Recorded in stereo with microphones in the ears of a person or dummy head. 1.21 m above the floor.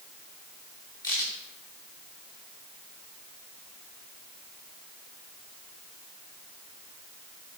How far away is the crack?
About 2.5 m.